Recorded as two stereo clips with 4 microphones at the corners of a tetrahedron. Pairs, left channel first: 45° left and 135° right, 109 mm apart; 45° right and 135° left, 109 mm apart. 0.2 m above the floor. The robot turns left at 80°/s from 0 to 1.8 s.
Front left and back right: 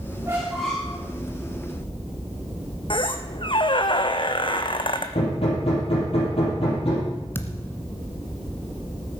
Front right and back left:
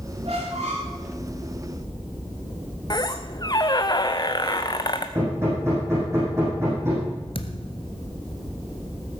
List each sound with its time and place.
0.2 s a squeak: 170° left, 5.5 m; by 1.0 s 110° left, 5.5 m
2.9 s a squeak: 5° left, 1.1 m
5.2 s hammering: 70° left, 6 m
7.3 s a thud: 20° right, 1.3 m